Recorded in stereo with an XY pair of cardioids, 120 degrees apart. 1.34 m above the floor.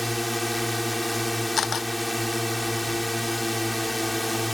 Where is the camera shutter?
40° left.